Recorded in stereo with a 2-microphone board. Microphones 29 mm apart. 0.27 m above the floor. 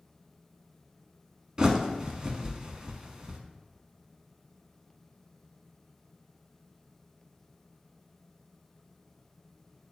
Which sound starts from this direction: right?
A bird, at 1.6 s.